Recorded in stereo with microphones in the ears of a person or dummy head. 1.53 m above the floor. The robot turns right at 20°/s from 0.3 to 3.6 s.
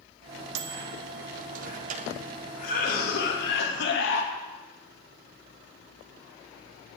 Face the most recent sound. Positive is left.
turn(degrees=65)  # may be behind; listen again after turning